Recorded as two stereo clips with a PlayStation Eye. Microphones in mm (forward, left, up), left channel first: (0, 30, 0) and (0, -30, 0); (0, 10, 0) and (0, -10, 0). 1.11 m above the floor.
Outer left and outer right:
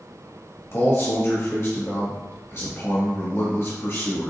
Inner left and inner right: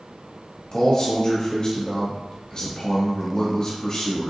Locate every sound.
0.7 s a man speaking: 45° left (ahead or behind), 1.6 m